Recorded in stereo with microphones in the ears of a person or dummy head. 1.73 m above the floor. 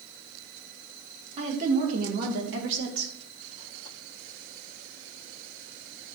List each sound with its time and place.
1.4 s a woman speaking: 35° right (ahead or behind), 3 m; by 3.1 s 80° right, 2 m